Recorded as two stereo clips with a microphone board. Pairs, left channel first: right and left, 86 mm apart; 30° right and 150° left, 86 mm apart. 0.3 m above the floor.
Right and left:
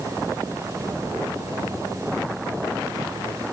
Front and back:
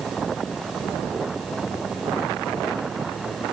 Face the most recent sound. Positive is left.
No sound to turn to.